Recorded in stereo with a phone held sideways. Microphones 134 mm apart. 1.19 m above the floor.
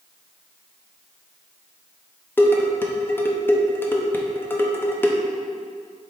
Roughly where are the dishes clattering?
Centre.